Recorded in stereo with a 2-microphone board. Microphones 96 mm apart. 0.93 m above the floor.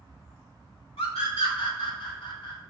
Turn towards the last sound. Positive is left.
turn(degrees=65)  # may be behind; listen again after turning